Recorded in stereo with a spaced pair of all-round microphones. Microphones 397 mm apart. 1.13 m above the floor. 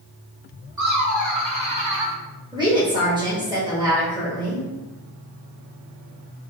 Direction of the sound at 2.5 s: 10° right (ahead or behind).